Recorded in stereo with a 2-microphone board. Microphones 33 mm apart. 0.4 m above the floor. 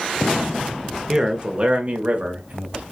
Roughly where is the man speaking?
Centre.